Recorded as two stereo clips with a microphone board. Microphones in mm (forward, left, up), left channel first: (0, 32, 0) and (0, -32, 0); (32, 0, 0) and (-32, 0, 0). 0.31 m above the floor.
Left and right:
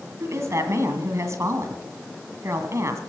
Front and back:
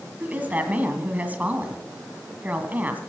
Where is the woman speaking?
120° right, 2 m.